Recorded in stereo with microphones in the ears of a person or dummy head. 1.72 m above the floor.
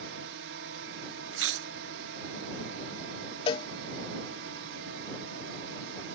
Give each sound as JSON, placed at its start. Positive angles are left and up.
{"t": 0.0, "sound": "a drone", "side_deg": -65}
{"t": 1.3, "sound": "chewing", "side_deg": -80}
{"t": 3.5, "sound": "a cowbell", "side_deg": 30}